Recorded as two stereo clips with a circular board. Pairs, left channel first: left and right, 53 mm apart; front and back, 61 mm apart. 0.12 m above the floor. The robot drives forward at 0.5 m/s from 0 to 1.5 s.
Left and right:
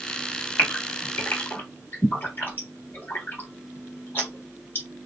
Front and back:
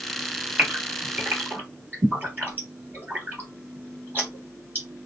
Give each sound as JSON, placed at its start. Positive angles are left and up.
{"t": 0.6, "sound": "a gasp", "azimuth_deg": 120, "distance_m": 2.0}